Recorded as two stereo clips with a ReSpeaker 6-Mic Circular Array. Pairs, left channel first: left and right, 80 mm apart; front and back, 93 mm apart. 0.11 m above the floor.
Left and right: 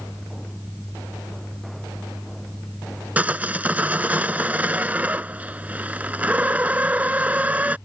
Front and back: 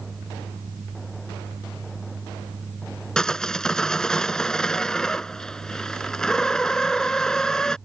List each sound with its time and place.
3.2 s sawing: 70° right